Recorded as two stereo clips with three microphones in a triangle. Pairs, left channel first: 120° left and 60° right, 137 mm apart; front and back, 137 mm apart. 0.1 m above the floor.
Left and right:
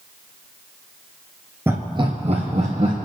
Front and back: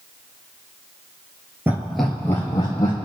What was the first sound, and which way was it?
Laughter, 120° right.